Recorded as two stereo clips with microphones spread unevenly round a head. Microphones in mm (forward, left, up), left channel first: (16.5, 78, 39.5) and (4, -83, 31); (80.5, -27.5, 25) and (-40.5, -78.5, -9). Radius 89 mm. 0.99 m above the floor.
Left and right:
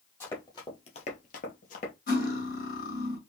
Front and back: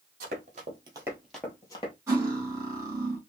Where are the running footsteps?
160° left, 1.9 m; by 1.9 s 55° left, 1.6 m.